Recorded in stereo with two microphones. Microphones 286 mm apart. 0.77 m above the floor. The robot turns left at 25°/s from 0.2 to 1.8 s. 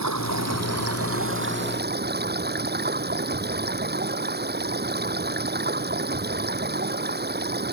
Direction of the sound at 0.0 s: 105° right.